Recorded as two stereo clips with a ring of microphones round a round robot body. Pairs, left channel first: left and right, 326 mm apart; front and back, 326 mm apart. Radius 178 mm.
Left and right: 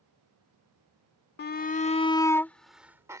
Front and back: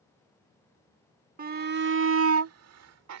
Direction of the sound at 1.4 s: 130° left.